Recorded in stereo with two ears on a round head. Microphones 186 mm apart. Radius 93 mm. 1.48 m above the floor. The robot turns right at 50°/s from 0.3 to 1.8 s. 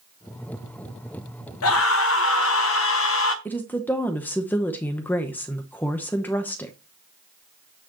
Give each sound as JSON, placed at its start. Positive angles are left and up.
{"t": 1.6, "sound": "a scream", "side_deg": 80, "distance_m": 1.1}
{"t": 3.5, "sound": "a woman speaking", "side_deg": 10, "distance_m": 0.9}